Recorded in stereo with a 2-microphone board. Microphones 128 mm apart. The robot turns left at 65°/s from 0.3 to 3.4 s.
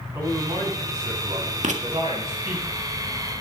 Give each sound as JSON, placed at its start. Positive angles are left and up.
{"t": 0.1, "sound": "a man speaking", "azimuth_deg": -30, "distance_m": 6.5}
{"t": 1.6, "sound": "writing", "side_deg": -75, "distance_m": 1.7}